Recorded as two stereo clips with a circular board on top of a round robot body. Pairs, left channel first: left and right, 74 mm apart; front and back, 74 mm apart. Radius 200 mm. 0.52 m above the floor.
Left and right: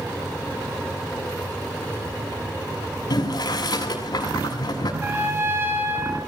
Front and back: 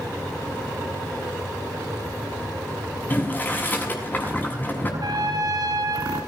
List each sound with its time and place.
3.1 s boiling: 65° left, 7 m
5.0 s a trumpet: 150° right, 5 m